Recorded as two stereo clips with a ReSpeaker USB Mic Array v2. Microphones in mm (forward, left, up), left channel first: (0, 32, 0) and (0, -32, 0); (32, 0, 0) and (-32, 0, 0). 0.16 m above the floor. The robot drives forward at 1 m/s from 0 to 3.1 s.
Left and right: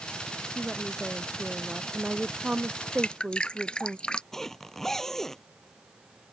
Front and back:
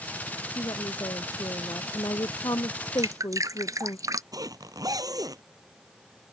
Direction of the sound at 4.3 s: 175° left.